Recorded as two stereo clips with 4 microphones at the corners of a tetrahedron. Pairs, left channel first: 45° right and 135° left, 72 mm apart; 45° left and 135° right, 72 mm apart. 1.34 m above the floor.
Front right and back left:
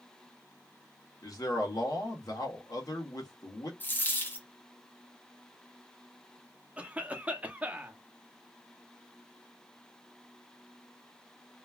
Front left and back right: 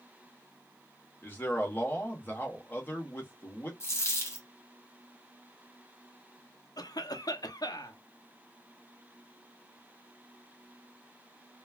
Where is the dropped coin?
10° left, 0.9 m.